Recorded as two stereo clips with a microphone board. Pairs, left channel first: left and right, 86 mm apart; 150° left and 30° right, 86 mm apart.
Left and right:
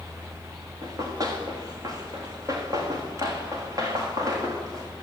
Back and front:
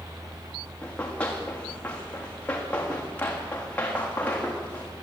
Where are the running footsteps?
135° right, 8 m.